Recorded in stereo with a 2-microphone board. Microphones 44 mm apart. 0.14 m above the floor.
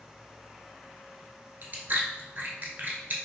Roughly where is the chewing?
Right.